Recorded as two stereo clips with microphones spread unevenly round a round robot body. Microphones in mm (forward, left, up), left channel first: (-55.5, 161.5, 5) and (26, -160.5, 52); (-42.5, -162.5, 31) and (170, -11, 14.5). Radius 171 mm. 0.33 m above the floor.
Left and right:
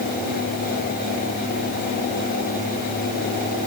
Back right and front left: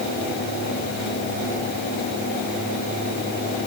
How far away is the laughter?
No laughter in this recording.